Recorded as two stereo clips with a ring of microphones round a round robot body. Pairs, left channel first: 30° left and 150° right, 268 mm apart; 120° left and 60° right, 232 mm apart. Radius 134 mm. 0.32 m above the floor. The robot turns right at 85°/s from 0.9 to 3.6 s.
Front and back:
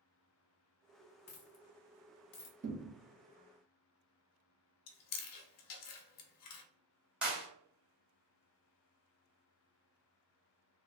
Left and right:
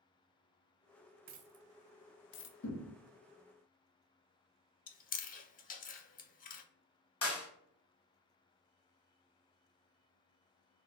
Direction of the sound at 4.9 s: 65° left.